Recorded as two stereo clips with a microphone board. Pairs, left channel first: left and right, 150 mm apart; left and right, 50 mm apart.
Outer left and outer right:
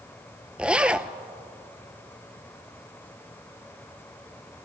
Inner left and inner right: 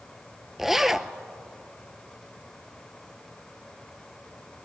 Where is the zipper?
10° right (ahead or behind), 0.6 m.